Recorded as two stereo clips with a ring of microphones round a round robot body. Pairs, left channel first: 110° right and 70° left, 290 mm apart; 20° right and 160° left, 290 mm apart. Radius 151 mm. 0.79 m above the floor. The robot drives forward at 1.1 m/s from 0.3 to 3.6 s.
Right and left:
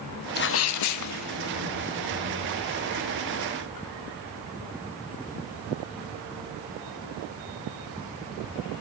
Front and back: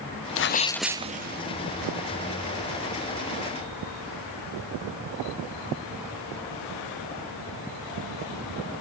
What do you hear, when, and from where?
0.4 s a sneeze: 60° right, 0.7 m; by 1.4 s 150° right, 1.0 m